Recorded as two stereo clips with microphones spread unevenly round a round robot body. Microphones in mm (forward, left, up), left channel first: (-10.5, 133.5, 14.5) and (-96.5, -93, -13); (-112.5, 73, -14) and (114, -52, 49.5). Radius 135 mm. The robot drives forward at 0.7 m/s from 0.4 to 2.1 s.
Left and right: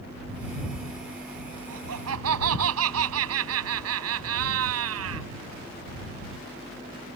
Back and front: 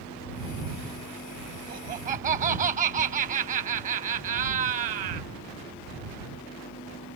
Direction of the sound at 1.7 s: 85° right.